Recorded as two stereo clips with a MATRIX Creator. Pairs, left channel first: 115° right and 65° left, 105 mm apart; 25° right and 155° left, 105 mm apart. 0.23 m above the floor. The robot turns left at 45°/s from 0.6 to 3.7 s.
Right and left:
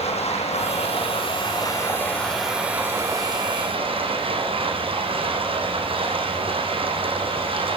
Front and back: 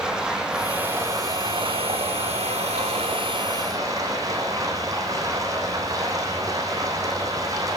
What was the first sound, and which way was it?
Running water, 120° right.